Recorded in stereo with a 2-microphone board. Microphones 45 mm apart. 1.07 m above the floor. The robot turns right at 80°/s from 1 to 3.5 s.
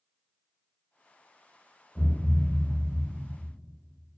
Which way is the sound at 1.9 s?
165° left.